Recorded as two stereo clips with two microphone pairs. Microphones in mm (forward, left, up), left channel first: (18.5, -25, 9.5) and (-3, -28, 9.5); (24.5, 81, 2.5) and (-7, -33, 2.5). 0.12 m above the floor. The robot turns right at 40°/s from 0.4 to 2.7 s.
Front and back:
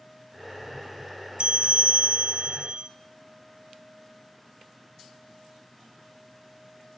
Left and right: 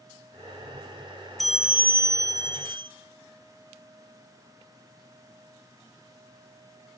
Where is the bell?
160° left, 1.8 m; by 2.9 s 145° right, 1.8 m.